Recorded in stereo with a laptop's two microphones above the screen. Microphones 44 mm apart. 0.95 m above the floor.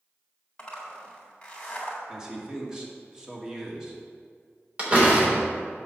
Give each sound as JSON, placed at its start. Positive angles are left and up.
{"t": 0.6, "sound": "a zipper", "side_deg": 20, "distance_m": 1.7}
{"t": 2.1, "sound": "a man speaking", "side_deg": -15, "distance_m": 2.5}
{"t": 4.8, "sound": "a door slam", "side_deg": -25, "distance_m": 3.0}